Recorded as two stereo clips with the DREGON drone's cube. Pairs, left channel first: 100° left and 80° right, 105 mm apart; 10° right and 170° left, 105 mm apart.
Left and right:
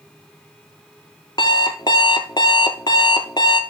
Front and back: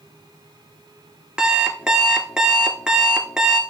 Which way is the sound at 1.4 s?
90° left.